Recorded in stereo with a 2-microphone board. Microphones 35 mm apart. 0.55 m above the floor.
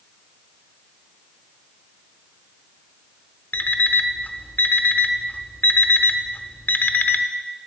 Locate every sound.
3.5 s an alarm clock: 65° left (ahead or behind), 0.7 m